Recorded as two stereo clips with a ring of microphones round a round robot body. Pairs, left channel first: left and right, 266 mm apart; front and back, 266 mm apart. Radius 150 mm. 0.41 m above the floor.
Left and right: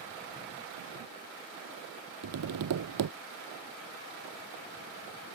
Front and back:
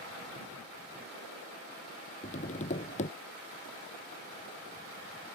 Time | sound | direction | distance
2.2 | tapping | 65° right | ?